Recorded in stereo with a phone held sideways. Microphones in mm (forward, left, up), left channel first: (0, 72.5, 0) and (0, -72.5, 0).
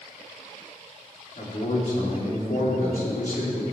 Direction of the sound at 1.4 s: 65° left (ahead or behind).